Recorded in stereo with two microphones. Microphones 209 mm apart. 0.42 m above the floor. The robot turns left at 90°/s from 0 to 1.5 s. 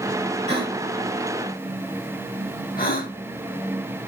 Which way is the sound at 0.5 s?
35° right (ahead or behind).